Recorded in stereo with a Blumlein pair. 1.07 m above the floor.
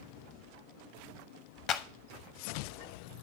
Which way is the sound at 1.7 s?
35° left.